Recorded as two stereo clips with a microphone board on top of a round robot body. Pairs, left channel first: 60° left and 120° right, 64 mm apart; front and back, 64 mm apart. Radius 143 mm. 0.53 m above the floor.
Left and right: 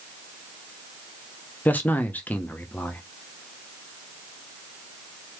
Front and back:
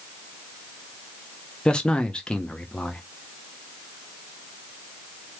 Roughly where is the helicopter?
No helicopter in this recording.